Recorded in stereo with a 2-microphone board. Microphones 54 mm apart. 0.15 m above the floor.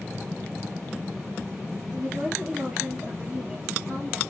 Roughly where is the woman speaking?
Centre.